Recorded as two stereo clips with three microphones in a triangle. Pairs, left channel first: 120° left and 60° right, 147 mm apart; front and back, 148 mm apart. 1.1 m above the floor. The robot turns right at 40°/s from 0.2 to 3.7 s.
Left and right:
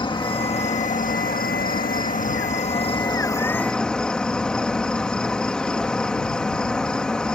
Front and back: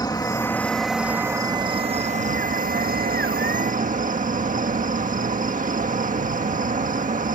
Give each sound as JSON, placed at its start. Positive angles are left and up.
{"t": 0.0, "sound": "an insect", "azimuth_deg": 65}